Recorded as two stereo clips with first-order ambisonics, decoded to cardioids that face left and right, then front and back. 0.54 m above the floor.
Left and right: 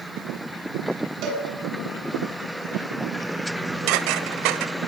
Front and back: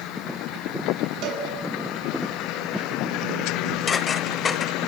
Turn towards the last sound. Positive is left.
turn(degrees=-70)